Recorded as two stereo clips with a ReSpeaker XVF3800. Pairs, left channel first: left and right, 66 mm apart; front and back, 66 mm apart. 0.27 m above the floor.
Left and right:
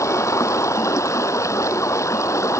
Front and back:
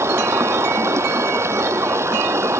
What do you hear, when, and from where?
0.0 s running water: 130° left